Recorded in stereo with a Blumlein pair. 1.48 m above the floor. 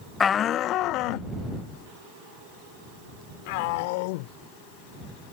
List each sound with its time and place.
0.2 s a shout: 20° left; by 5.3 s 50° left